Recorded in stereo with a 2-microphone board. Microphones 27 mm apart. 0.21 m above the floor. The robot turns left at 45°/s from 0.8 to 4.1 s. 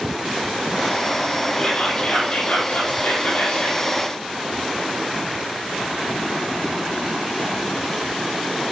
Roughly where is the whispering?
Behind left.